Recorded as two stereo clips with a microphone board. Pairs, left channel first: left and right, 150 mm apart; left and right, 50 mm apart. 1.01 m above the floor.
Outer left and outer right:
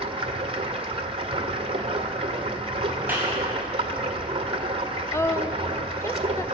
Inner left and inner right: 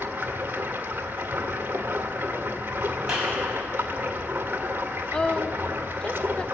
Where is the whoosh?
No whoosh in this recording.